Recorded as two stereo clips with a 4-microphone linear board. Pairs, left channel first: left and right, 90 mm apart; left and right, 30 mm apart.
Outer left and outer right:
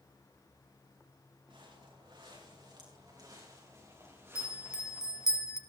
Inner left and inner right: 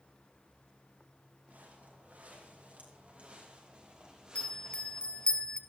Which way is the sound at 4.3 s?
40° left (ahead or behind).